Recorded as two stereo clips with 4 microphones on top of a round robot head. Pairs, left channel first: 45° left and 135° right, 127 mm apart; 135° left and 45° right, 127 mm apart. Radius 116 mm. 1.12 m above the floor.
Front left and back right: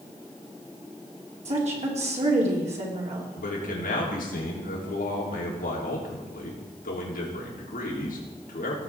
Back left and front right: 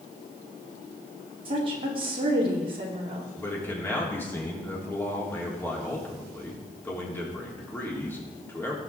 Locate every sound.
1.4 s a woman speaking: 95° right, 3 m
3.4 s a man speaking: 60° left, 3.5 m